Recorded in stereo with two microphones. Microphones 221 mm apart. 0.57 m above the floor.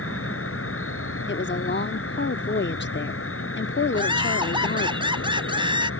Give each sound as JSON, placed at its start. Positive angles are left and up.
{"t": 0.0, "sound": "an insect", "side_deg": 65}
{"t": 1.3, "sound": "a woman speaking", "side_deg": 50}
{"t": 3.9, "sound": "laughter", "side_deg": -20}